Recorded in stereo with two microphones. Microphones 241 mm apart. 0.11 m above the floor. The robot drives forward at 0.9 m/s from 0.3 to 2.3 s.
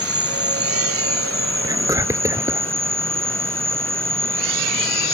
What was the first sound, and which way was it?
An insect, 70° right (ahead or behind).